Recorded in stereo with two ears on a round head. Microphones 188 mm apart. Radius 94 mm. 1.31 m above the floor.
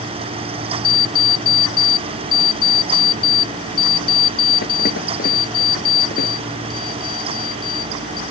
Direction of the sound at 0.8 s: 45° left (ahead or behind).